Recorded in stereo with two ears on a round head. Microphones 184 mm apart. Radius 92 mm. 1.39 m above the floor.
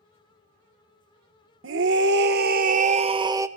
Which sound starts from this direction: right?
A scream, at 1.6 s.